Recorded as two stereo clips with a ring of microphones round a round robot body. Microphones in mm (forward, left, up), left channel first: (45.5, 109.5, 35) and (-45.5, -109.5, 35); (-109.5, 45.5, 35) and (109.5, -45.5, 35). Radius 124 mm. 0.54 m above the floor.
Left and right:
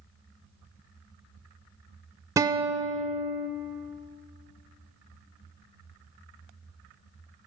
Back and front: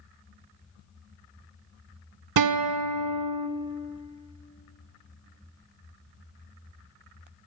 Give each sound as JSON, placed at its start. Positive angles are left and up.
{"t": 2.4, "sound": "a guitar", "azimuth_deg": -35, "distance_m": 0.6}